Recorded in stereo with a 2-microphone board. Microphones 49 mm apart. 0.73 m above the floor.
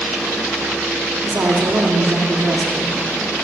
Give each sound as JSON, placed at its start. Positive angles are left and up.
{"t": 1.2, "sound": "a woman speaking", "side_deg": -60, "distance_m": 1.6}